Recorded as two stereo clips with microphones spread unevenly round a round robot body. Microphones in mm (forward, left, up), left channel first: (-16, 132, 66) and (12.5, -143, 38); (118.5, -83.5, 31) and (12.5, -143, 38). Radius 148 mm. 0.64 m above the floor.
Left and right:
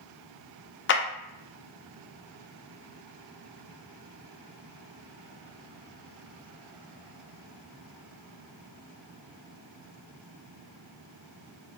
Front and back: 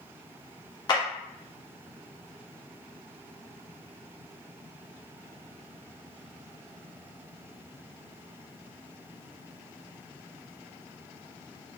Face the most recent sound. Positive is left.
turn(degrees=60)